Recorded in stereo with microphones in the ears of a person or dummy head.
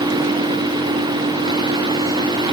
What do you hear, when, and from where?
Only background noise.